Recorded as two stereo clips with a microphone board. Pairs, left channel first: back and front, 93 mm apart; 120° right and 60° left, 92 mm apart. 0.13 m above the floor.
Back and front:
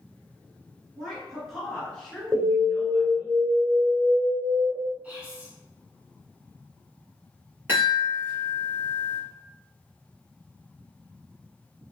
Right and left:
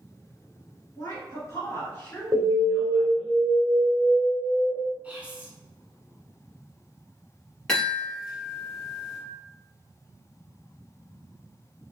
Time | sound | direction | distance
1.0 | a woman speaking | 90° right | 2.0 m
2.3 | an alarm | 50° left | 0.9 m
5.0 | whispering | 35° left | 1.1 m
7.7 | a chime | 40° right | 1.8 m